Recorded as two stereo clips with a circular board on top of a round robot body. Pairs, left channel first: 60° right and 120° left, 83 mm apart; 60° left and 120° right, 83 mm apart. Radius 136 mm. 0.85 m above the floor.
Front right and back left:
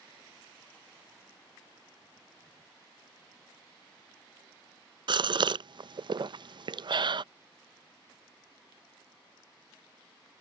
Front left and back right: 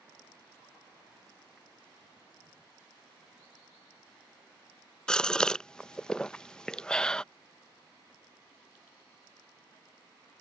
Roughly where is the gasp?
Behind left.